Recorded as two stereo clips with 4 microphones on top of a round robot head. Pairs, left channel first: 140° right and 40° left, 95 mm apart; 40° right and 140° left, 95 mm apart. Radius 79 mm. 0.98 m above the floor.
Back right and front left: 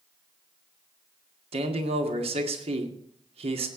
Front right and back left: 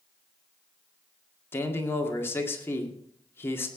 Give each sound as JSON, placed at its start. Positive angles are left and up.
{"t": 1.5, "sound": "a man speaking", "azimuth_deg": 25, "distance_m": 2.0}